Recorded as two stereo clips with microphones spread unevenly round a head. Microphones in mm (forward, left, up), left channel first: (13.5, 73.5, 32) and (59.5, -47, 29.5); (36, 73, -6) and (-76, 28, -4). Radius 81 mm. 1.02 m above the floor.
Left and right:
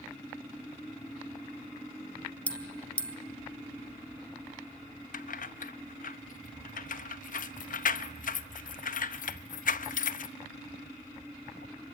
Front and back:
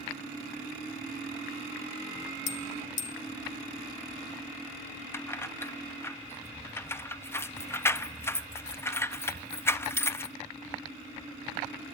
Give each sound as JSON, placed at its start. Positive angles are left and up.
{"t": 2.5, "sound": "a bell", "azimuth_deg": 30, "distance_m": 1.6}
{"t": 5.1, "sound": "keys jangling", "azimuth_deg": 90, "distance_m": 0.9}